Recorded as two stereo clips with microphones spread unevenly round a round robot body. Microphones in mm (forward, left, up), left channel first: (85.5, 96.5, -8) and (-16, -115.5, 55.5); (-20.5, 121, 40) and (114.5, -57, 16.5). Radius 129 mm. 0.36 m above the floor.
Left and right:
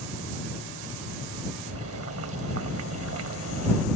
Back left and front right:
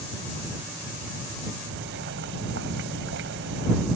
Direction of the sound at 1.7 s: 85° right.